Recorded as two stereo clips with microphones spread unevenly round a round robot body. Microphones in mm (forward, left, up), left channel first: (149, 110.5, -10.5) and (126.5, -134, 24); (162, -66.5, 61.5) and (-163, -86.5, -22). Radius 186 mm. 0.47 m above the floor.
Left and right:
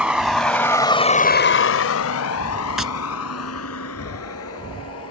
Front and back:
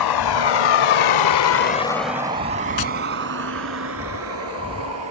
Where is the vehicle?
10° right; by 5.1 s 135° left.